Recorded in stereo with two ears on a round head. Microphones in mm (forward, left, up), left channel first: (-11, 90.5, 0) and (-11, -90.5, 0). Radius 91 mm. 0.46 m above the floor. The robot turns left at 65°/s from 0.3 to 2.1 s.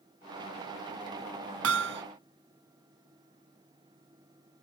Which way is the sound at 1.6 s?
80° right.